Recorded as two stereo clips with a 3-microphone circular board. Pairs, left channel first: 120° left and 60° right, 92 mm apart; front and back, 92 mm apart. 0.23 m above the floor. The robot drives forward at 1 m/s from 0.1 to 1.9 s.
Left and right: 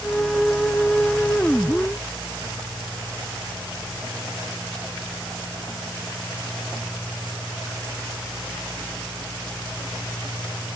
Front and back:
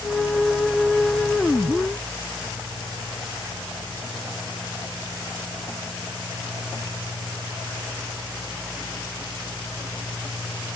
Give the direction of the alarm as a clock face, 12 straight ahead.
I don't hear an alarm.